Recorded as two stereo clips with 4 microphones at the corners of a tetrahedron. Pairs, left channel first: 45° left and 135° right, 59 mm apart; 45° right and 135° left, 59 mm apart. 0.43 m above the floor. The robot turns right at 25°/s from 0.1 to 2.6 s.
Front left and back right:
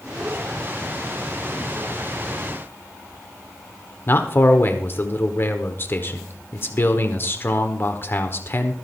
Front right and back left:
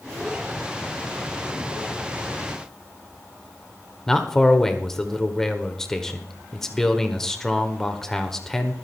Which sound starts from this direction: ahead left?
A man speaking, at 4.1 s.